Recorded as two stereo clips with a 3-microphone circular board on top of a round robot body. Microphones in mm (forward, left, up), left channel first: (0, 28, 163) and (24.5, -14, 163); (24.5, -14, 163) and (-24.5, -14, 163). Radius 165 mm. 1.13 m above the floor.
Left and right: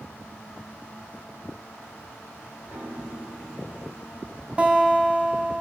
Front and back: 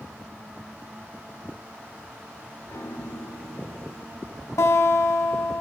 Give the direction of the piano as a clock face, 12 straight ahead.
12 o'clock.